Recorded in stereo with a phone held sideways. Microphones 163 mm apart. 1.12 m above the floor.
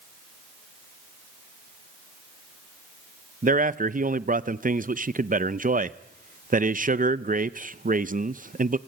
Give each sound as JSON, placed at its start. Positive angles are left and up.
{"t": 3.4, "sound": "a man speaking", "side_deg": -55, "distance_m": 0.6}